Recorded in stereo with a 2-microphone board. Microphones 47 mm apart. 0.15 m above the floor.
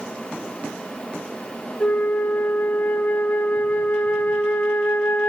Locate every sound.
1.8 s a flute: 40° left (ahead or behind), 1.8 m